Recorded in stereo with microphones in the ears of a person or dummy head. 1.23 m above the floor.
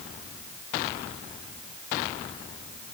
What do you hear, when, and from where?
Only background noise.